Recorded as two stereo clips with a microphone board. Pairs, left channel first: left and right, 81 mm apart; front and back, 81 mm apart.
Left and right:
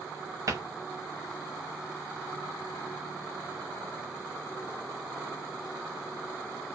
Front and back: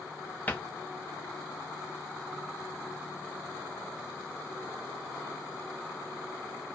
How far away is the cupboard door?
About 0.7 m.